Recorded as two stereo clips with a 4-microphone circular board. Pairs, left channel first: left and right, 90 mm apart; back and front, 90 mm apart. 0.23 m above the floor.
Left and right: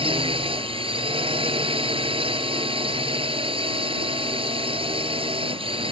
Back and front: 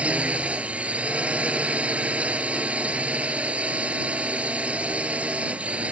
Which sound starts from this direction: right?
A drone, at 0.0 s.